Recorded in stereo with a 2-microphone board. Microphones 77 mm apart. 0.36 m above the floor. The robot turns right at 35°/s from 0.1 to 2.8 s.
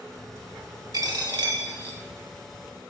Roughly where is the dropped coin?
Behind right.